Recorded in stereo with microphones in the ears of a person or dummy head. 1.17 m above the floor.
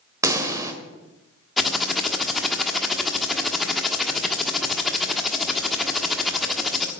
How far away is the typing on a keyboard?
About 1.4 m.